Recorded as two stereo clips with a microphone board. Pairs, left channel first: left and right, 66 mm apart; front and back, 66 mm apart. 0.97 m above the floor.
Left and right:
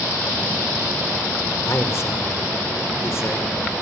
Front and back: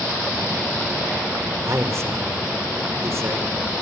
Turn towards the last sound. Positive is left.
turn(degrees=135)